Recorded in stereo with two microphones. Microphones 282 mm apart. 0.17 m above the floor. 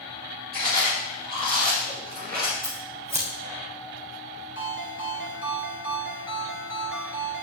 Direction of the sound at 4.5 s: 45° right (ahead or behind).